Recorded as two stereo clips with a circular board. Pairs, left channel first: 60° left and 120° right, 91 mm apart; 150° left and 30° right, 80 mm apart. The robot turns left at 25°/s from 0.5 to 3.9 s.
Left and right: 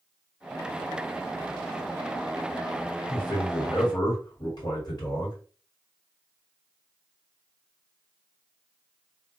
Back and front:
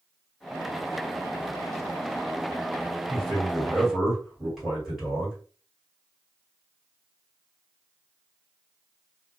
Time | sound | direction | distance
3.1 | a man speaking | 75° left | 1.9 m